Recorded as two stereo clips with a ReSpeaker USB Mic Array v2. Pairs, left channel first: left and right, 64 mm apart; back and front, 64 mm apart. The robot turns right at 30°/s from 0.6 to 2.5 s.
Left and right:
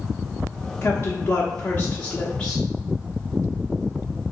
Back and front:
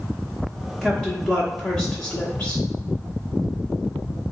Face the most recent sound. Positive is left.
turn(degrees=155)